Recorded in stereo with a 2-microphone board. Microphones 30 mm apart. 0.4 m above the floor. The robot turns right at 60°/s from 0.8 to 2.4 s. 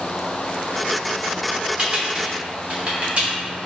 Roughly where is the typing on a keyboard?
Right.